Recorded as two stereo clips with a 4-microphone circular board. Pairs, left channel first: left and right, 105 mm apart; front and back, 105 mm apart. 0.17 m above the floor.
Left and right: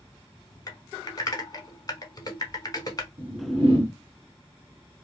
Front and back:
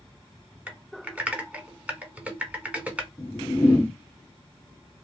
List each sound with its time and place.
0.7 s typing on a keyboard: 110° left, 0.7 m
3.2 s a whoosh: 70° right, 1.6 m